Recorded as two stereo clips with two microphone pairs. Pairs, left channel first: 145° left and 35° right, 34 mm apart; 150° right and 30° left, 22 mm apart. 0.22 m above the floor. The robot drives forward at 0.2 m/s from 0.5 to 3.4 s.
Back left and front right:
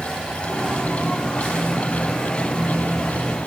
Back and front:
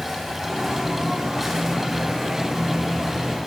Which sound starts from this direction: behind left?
An insect, at 0.0 s.